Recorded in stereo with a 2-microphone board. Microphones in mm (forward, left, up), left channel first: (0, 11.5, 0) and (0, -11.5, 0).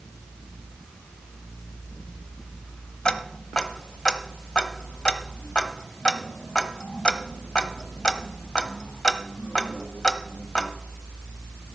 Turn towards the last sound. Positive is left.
turn(degrees=40)  # may be behind; listen again after turning